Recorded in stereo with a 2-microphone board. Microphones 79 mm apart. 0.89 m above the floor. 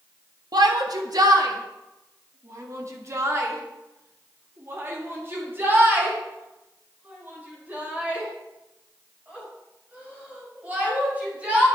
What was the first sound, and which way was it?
A shout, 60° right (ahead or behind).